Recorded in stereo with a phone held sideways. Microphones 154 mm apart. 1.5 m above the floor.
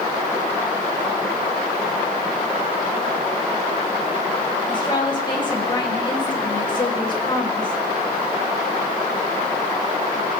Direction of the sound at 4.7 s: 30° left (ahead or behind).